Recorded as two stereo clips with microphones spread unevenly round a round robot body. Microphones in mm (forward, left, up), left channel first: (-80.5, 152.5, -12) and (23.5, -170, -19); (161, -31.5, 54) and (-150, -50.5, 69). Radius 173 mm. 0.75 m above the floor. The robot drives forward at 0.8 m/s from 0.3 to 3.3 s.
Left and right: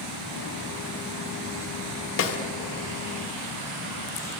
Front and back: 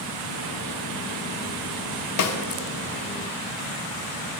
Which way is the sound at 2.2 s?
50° left.